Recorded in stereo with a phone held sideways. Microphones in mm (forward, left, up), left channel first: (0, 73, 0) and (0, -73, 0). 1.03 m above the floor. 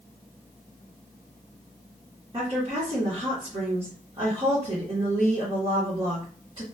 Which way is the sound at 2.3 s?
35° right (ahead or behind).